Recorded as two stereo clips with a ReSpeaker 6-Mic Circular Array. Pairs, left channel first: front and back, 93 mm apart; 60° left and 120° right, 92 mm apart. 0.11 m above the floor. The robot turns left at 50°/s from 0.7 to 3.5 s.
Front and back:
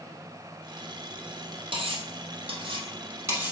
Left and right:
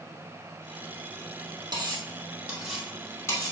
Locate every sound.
1.7 s cutlery clinking: 160° right, 2.5 m; by 3.5 s 110° left, 2.5 m